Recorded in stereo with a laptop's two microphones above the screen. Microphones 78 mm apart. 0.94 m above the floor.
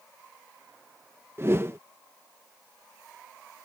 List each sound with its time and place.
1.4 s a whoosh: 35° right (ahead or behind)